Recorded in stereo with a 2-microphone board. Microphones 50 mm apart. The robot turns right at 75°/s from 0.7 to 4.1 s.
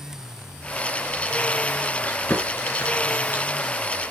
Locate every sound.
2.0 s chewing: 30° left (ahead or behind), 2.5 m; by 3.8 s 10° left (ahead or behind), 2.5 m